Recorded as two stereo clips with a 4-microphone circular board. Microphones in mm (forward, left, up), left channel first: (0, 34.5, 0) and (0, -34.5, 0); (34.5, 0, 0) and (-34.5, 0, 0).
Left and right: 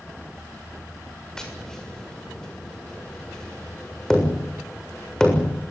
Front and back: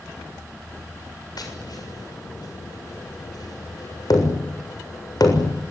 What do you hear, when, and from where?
1.4 s tapping: 10° left, 7 m